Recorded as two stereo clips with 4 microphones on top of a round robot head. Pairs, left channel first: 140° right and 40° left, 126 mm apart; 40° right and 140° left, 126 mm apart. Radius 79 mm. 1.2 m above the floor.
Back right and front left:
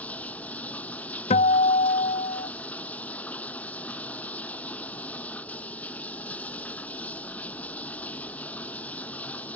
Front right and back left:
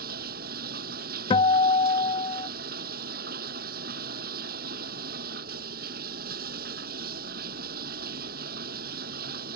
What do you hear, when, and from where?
0.0 s running water: 140° left
1.3 s a guitar: 95° right